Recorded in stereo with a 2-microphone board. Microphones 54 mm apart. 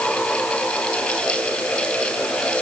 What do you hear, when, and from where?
Only background noise.